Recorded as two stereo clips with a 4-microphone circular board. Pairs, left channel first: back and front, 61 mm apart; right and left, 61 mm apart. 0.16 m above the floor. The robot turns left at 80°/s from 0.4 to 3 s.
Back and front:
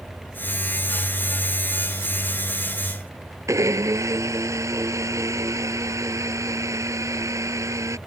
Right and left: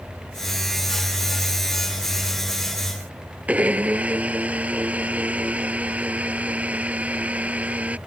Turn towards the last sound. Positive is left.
turn(degrees=25)